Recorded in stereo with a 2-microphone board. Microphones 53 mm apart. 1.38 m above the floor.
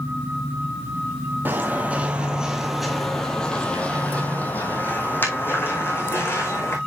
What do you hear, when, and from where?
1.4 s footsteps: 35° right (ahead or behind), 1.7 m; by 6.8 s 50° left (ahead or behind), 3.5 m